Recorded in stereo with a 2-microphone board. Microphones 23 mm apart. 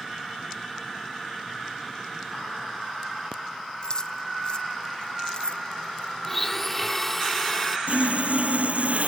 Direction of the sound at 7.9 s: 70° right (ahead or behind).